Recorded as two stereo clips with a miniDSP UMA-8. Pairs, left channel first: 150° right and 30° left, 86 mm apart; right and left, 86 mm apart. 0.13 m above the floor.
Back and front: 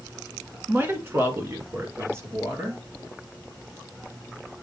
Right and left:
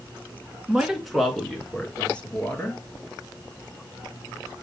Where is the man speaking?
30° left, 1.5 m; by 2.8 s 25° right, 2.5 m.